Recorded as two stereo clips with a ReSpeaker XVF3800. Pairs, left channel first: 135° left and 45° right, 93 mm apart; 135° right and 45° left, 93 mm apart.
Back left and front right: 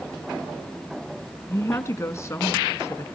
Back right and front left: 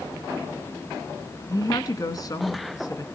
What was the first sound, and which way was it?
A woman speaking, 170° right.